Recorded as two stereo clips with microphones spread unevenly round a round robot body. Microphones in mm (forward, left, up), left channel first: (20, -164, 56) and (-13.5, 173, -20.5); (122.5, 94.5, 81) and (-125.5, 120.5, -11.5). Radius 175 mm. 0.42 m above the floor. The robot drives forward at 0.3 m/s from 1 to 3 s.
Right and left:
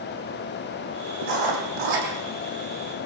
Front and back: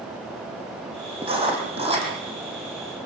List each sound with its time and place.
1.2 s writing: 105° left, 6.5 m